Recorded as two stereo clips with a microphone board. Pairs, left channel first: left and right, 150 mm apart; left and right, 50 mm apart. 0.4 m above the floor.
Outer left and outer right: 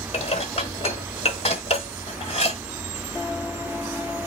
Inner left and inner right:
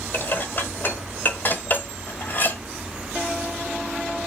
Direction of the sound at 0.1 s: 45° left (ahead or behind).